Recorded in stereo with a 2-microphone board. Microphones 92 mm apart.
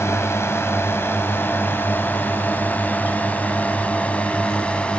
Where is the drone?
30° left (ahead or behind); by 5.0 s 10° left (ahead or behind).